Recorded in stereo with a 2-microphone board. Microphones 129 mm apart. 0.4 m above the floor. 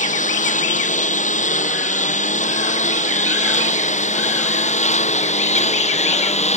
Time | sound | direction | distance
0.0 | a lawn mower | 80° left | ?